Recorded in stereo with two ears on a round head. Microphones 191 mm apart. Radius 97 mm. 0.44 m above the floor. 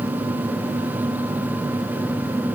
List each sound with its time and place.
Only background noise.